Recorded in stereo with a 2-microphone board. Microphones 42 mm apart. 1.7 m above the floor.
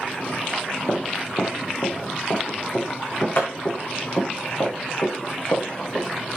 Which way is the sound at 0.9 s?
60° left (ahead or behind).